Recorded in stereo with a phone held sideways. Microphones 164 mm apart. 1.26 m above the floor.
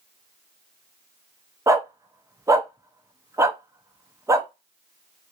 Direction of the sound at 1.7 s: 20° right (ahead or behind).